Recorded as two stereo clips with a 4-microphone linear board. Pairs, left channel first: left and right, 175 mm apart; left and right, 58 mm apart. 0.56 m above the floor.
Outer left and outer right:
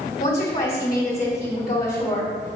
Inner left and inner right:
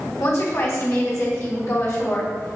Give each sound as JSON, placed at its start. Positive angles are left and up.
{"t": 0.2, "sound": "a woman speaking", "side_deg": 55, "distance_m": 3.0}